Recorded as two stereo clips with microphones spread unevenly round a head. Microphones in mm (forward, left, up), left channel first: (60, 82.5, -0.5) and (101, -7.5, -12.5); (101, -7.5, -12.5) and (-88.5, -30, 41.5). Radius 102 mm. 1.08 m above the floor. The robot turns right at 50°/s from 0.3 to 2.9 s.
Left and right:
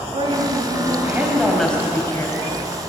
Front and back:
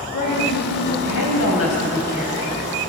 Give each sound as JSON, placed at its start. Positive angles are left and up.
{"t": 0.1, "sound": "a woman speaking", "azimuth_deg": -35, "distance_m": 5.5}